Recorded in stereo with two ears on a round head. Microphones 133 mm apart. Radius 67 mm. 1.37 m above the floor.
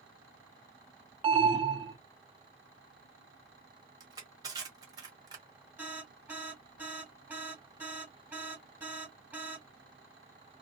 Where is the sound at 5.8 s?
10° right (ahead or behind), 1.4 m.